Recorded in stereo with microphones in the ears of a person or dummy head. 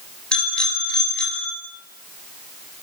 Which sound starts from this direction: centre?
A bicycle bell, at 0.3 s.